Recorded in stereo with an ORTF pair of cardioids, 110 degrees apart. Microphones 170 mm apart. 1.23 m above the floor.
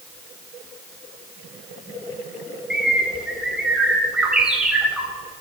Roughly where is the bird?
Ahead.